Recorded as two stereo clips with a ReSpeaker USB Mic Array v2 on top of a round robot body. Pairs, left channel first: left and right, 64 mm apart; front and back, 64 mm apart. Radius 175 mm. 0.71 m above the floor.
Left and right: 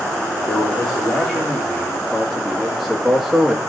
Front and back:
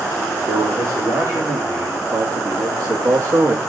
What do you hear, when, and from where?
0.5 s a man speaking: 170° left, 3.5 m; by 3.6 s 170° right, 1.8 m